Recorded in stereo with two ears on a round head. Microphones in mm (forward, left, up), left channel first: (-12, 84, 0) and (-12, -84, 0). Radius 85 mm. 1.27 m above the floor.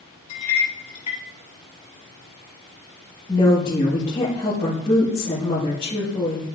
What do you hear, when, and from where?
0.3 s a clink: 30° left (ahead or behind), 3.5 m
3.3 s a woman speaking: 20° left (ahead or behind), 2.0 m